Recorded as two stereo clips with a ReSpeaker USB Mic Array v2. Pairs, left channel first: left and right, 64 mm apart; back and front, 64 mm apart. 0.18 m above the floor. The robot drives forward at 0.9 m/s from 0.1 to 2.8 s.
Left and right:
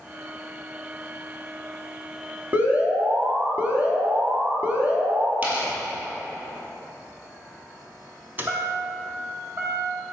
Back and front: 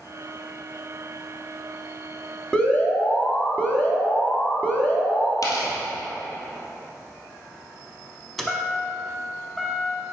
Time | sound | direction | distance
2.5 | an alarm | 115° right | 0.9 m
5.4 | tearing paper | 150° right | 2 m
8.4 | a chime | 95° right | 0.7 m